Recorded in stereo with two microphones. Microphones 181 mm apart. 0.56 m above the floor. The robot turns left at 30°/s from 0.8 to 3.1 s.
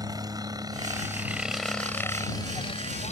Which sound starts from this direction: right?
A helicopter, at 0.0 s.